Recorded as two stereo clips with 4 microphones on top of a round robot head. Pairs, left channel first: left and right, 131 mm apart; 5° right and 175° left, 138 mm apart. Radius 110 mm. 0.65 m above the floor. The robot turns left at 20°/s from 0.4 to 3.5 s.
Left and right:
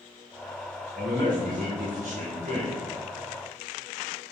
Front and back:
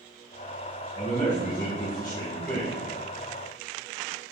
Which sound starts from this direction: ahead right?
A man speaking, at 0.9 s.